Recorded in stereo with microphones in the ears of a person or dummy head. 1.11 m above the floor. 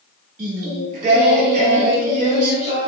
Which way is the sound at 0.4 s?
50° right (ahead or behind).